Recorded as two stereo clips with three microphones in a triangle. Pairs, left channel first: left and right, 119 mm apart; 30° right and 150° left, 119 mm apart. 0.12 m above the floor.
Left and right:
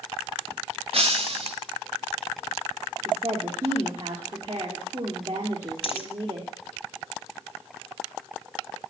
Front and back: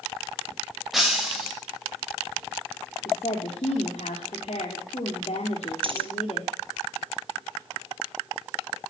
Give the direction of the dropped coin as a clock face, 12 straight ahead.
8 o'clock.